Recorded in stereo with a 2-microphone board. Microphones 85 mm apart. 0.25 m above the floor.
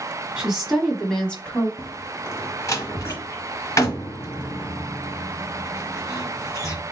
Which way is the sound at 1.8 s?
40° left (ahead or behind).